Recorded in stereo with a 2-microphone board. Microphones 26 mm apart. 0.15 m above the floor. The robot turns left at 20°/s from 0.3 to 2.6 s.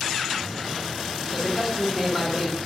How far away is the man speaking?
About 1.6 m.